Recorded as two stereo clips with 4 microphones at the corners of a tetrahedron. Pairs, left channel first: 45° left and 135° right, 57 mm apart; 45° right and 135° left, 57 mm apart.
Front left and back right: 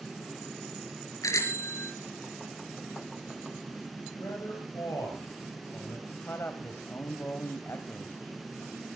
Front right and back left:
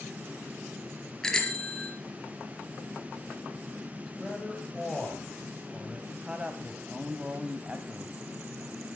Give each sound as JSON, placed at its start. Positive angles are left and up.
{"t": 1.2, "sound": "a bicycle bell", "azimuth_deg": 35, "distance_m": 3.5}
{"t": 4.1, "sound": "a man speaking", "azimuth_deg": 35, "distance_m": 9.5}
{"t": 6.1, "sound": "a man speaking", "azimuth_deg": 70, "distance_m": 1.8}